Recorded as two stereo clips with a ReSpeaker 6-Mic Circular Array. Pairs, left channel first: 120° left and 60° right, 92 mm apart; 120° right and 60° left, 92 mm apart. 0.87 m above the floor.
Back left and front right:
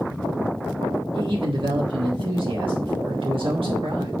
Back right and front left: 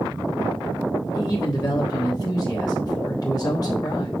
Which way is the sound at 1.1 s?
75° right.